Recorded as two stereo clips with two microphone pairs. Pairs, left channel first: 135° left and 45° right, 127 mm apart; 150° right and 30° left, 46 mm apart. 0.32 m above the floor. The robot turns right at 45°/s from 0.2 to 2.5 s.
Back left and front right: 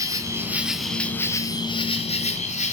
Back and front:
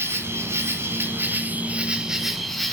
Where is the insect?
20° left, 2.0 m; by 2.7 s 120° left, 2.0 m.